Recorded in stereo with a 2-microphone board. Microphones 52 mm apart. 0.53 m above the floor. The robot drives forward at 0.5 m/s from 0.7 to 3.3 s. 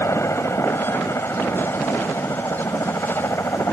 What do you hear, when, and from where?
0.0 s a helicopter: 65° left (ahead or behind)